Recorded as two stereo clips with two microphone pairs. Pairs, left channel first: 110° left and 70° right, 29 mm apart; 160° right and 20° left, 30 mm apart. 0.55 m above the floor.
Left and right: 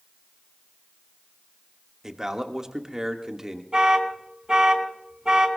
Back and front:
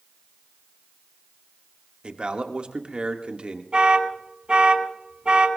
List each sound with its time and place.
2.0 s a man speaking: 5° right, 1.2 m
3.7 s an alarm: 15° right, 2 m